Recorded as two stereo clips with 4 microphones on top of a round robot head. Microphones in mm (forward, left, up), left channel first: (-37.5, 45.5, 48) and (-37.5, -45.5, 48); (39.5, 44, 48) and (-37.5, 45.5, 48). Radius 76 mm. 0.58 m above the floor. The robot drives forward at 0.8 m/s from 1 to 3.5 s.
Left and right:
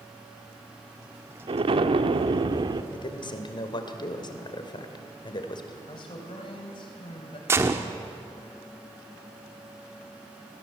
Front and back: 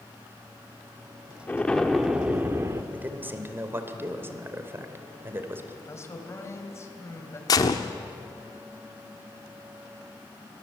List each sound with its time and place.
1.5 s an explosion: 70° right, 1.2 m; by 2.8 s 125° right, 1.3 m
2.9 s a man speaking: 110° left, 2.5 m; by 5.8 s 120° left, 2.5 m
5.9 s a man speaking: 50° left, 3.5 m
7.5 s a gunshot: 30° right, 1.1 m